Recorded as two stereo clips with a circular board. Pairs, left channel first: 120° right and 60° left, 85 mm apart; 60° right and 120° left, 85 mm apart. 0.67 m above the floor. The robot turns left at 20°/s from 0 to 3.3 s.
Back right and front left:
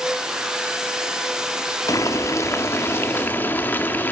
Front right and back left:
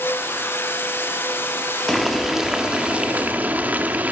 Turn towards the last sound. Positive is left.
turn(degrees=-175)